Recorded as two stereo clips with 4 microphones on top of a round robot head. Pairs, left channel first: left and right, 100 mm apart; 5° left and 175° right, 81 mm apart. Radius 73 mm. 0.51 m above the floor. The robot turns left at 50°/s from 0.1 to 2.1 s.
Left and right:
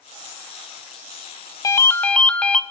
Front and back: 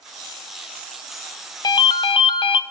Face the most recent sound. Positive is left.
turn(degrees=10)